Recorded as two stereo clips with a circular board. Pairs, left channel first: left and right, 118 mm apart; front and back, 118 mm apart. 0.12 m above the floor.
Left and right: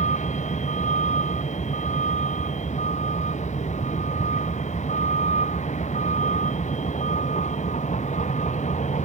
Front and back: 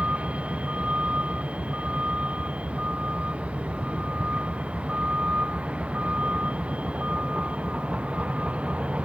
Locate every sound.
0.0 s a vehicle: 100° left